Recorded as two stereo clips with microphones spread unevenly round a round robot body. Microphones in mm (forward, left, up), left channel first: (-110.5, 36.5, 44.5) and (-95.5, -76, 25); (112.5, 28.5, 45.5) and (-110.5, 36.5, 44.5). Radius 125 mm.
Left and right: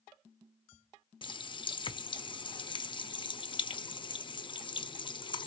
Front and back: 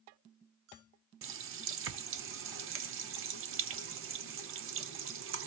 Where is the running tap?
150° left, 0.7 m.